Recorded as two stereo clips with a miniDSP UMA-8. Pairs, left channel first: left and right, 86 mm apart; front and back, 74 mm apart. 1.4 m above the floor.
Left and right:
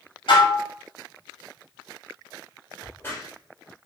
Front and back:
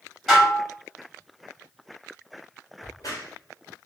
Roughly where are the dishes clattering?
Left.